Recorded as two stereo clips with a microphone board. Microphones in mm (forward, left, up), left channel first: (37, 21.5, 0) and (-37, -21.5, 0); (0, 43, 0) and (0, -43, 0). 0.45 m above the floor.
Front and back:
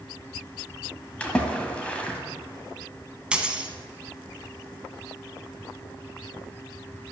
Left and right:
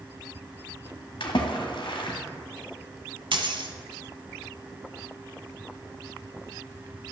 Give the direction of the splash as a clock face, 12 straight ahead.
8 o'clock.